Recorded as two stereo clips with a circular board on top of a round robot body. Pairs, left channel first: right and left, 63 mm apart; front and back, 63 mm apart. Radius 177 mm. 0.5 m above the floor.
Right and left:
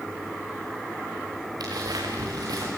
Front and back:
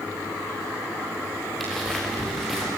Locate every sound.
1.6 s footsteps: 85° left, 5.5 m; by 2.7 s 90° left, 5 m